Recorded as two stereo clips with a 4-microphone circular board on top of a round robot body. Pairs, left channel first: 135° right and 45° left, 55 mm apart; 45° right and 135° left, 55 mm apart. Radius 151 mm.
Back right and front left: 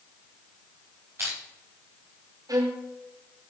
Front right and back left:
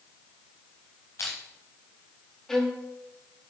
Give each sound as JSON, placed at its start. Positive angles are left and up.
{"t": 1.2, "sound": "crushing", "azimuth_deg": 0, "distance_m": 1.0}
{"t": 2.5, "sound": "a violin", "azimuth_deg": 40, "distance_m": 1.0}